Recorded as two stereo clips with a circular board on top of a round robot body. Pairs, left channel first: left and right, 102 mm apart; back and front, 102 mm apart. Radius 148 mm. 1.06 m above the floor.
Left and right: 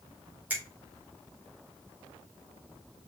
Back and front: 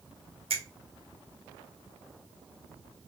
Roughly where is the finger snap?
Ahead.